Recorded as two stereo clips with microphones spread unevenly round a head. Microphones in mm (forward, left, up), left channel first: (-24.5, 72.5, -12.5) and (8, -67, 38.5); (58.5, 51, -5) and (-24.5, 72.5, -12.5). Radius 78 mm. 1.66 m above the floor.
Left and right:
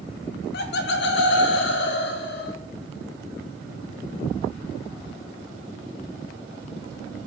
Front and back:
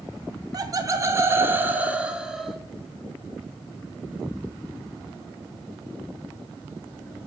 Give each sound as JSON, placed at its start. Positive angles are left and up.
{"t": 0.5, "sound": "laughter", "azimuth_deg": 120, "distance_m": 1.4}